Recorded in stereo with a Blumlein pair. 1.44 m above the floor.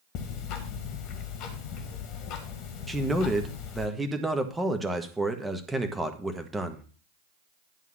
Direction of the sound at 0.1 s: 40° left.